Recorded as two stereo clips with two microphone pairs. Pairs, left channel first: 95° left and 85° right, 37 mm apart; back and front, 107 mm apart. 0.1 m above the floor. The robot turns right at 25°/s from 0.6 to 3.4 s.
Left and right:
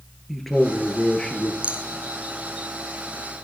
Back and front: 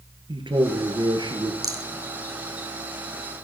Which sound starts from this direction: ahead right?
A rattle, at 1.6 s.